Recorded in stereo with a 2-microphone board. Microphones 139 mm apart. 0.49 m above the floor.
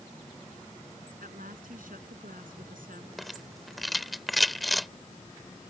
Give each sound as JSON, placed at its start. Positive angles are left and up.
{"t": 1.2, "sound": "a woman speaking", "side_deg": -80}
{"t": 3.2, "sound": "a rattle", "side_deg": 0}